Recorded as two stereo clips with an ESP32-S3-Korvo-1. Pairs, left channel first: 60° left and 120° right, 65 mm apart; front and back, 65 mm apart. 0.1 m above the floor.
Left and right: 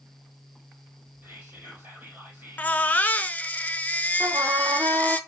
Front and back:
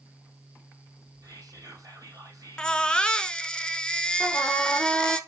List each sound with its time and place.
1.2 s whispering: 175° right, 3 m
2.6 s a baby crying: 60° left, 0.5 m
4.2 s a trumpet: 80° right, 1.3 m